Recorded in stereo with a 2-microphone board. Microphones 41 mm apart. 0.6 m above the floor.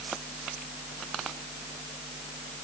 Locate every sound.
Only background noise.